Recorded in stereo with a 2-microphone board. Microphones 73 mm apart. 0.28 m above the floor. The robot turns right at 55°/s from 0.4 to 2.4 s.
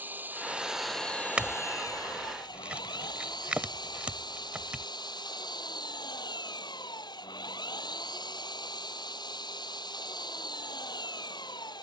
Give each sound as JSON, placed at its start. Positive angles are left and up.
{"t": 0.0, "sound": "an engine running", "azimuth_deg": -25}
{"t": 1.4, "sound": "a clink", "side_deg": -15}